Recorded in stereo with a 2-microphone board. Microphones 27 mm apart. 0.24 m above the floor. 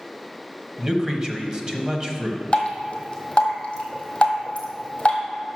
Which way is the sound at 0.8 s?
25° right (ahead or behind).